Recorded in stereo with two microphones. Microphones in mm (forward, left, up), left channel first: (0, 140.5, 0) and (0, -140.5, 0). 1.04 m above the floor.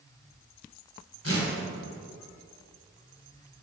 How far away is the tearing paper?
About 2 m.